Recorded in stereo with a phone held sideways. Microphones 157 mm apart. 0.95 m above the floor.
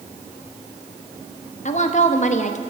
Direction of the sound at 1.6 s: 50° left (ahead or behind).